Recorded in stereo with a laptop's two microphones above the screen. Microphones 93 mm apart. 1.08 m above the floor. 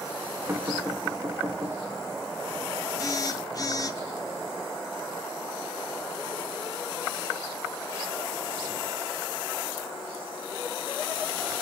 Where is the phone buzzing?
35° left (ahead or behind), 0.8 m.